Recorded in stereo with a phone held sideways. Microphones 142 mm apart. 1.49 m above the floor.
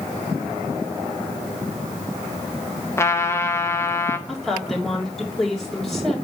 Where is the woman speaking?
Centre (ahead or behind), 3.5 m.